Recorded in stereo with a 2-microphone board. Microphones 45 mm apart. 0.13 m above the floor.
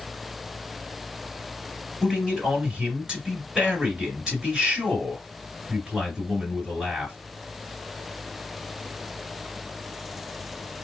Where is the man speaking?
15° right (ahead or behind), 2 m.